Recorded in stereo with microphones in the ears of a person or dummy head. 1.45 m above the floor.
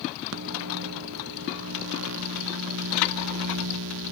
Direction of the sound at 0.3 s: 80° right.